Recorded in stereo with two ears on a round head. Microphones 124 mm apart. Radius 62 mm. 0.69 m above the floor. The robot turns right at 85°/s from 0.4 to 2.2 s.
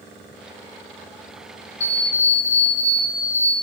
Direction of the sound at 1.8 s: 135° left.